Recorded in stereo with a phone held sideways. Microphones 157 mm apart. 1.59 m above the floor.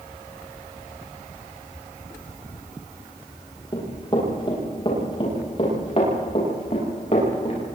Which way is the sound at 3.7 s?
30° left (ahead or behind).